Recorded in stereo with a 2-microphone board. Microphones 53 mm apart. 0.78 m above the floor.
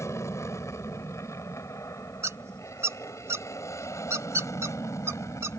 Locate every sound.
0.0 s an aircraft: 65° left (ahead or behind); by 5.6 s 75° left (ahead or behind)
2.2 s a squeak: 65° right (ahead or behind)